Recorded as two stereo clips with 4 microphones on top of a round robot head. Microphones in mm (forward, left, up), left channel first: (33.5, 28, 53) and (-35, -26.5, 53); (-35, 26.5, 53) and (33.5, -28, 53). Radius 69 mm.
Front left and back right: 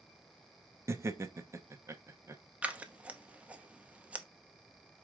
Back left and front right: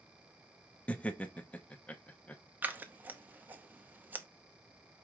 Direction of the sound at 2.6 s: 85° right.